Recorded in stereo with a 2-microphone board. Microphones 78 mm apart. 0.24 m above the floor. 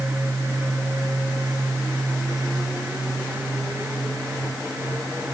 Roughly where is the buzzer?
I don't hear a buzzer.